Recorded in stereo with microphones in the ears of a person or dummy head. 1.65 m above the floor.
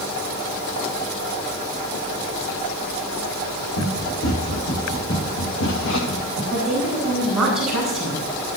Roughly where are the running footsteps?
Left.